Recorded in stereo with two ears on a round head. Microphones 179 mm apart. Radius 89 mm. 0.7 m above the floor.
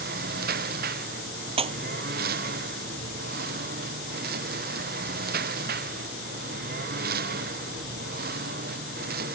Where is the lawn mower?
50° right (ahead or behind).